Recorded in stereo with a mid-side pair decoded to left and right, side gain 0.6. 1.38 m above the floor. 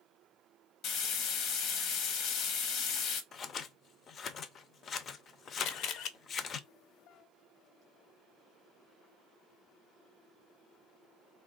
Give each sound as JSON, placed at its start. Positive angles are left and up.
{"t": 0.8, "sound": "frying", "azimuth_deg": 65, "distance_m": 0.8}
{"t": 3.3, "sound": "scissors", "azimuth_deg": 45, "distance_m": 0.5}
{"t": 5.6, "sound": "a camera shutter", "azimuth_deg": 65, "distance_m": 0.6}